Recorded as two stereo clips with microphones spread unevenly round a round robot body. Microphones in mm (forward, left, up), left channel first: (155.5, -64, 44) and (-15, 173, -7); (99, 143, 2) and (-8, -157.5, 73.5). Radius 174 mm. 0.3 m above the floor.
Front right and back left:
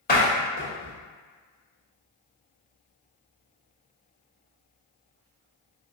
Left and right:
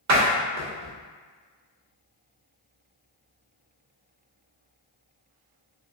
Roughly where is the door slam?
Right.